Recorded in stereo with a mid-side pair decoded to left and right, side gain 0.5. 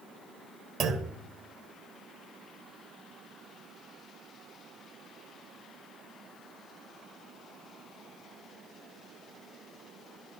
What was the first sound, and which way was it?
A clunk, 60° right.